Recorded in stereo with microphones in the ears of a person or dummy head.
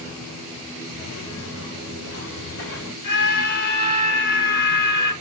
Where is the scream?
55° left (ahead or behind), 8 m.